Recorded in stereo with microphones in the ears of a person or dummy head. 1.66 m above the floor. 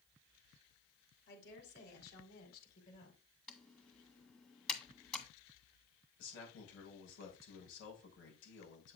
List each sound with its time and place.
1.3 s a woman speaking: 60° left (ahead or behind), 5 m; by 3.2 s 45° left (ahead or behind), 5 m
3.5 s typing on a keyboard: 5° left (ahead or behind), 1.7 m
6.2 s a man speaking: 75° left (ahead or behind), 6 m